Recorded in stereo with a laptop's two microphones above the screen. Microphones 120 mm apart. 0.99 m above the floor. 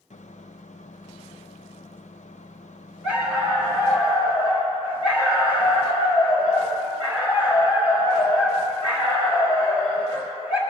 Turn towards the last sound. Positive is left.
turn(degrees=-10)  # may be behind; listen again after turning